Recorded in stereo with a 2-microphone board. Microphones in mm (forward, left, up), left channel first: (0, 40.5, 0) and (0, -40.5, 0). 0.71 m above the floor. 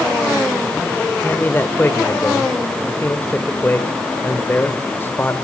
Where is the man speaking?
25° left (ahead or behind), 2.5 m.